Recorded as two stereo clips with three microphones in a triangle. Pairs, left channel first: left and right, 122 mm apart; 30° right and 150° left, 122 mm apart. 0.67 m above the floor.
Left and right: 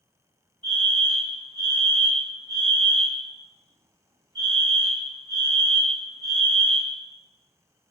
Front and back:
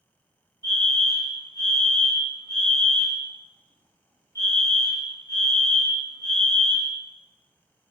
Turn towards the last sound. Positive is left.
turn(degrees=-75)